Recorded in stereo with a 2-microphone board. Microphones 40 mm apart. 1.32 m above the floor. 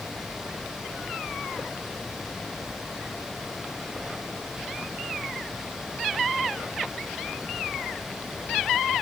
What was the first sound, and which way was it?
Only background noise.